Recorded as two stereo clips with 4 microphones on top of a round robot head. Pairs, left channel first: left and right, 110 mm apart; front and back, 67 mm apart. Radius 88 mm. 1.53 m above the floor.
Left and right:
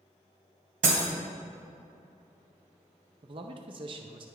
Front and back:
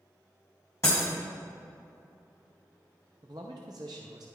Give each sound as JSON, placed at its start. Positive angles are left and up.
{"t": 0.8, "sound": "breaking glass", "azimuth_deg": -70, "distance_m": 2.0}
{"t": 3.2, "sound": "a man speaking", "azimuth_deg": -130, "distance_m": 0.6}